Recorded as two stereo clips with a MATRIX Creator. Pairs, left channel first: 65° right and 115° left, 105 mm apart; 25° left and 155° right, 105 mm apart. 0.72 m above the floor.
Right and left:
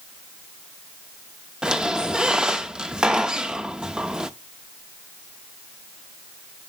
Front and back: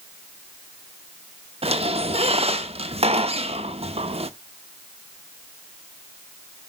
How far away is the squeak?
About 0.8 m.